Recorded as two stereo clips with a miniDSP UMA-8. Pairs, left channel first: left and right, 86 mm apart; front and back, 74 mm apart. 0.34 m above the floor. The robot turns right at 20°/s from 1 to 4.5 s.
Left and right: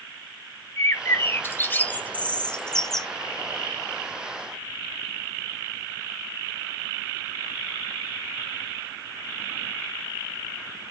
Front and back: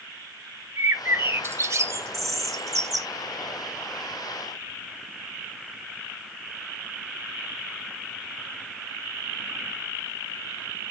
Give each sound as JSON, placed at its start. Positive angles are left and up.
{"t": 0.8, "sound": "a bird", "azimuth_deg": 135, "distance_m": 0.7}